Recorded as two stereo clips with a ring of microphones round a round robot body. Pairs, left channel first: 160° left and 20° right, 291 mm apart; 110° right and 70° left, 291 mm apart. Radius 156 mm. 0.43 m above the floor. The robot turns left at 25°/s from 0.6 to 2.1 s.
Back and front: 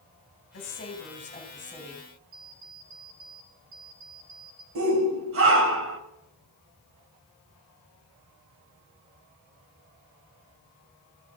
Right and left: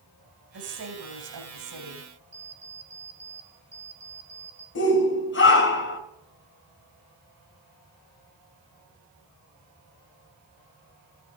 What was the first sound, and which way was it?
A woman speaking, 105° left.